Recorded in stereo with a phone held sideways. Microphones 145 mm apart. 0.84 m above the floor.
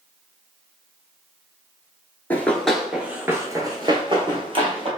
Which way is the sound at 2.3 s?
15° left (ahead or behind).